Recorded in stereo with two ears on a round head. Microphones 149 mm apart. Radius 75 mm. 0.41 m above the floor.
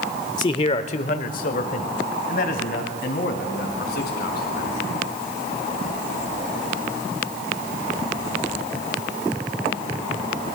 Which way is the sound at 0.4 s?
25° left (ahead or behind).